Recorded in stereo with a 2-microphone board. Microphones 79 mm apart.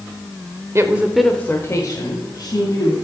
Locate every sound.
0.8 s a woman speaking: 35° right (ahead or behind), 1.0 m; by 3.0 s 55° left (ahead or behind), 2.5 m